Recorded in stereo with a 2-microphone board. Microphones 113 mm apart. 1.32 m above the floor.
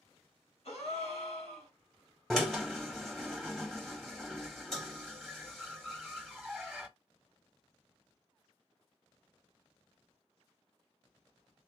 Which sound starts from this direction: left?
A gasp, at 0.7 s.